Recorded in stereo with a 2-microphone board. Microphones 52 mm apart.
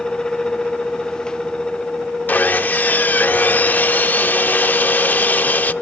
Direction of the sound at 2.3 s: 35° left (ahead or behind).